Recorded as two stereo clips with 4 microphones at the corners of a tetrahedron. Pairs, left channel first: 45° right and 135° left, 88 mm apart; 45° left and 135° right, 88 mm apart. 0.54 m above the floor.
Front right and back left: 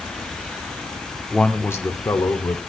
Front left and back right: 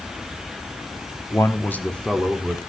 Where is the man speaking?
35° left, 1.0 m; by 2.6 s 45° right, 1.7 m.